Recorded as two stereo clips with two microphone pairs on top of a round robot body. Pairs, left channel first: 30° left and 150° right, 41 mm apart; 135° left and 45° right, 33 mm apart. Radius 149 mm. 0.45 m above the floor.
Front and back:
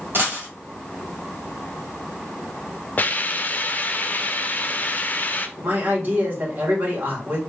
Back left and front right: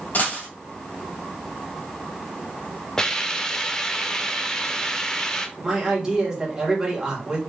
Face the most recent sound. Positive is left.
turn(degrees=-125)